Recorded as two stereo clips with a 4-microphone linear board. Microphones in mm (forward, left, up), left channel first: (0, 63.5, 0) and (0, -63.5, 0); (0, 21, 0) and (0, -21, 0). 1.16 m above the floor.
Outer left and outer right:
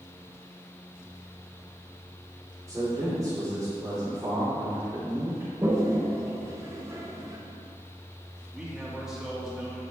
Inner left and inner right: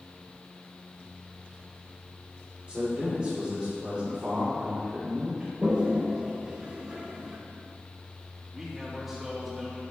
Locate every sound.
2.7 s a man speaking: 20° right (ahead or behind), 2.5 m
5.6 s a toilet flushing: 20° right (ahead or behind), 1.3 m
8.5 s a man speaking: 5° right (ahead or behind), 2.5 m